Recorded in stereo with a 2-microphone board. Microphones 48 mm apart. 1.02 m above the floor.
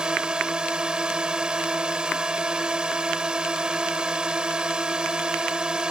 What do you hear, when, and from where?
0.0 s a drone: 15° right (ahead or behind)